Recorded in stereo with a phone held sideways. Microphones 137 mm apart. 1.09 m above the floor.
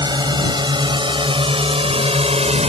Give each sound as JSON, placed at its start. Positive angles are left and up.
{"t": 0.0, "sound": "a drone", "side_deg": -30}